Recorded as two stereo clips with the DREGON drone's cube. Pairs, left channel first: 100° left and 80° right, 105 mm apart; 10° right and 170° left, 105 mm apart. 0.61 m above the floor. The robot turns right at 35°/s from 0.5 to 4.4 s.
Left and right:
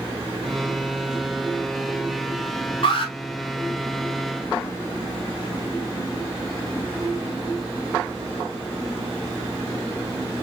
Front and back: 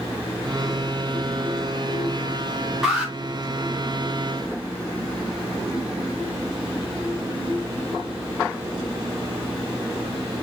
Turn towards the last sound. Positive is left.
turn(degrees=140)